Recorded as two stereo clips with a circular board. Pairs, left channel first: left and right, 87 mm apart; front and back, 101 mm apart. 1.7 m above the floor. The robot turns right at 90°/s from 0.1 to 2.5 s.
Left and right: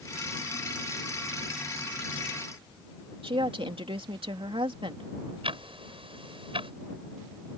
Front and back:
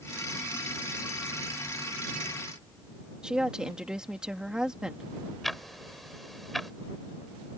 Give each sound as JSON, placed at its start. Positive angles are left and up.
{"t": 3.2, "sound": "a woman speaking", "azimuth_deg": -95}
{"t": 5.4, "sound": "ticking", "azimuth_deg": -90}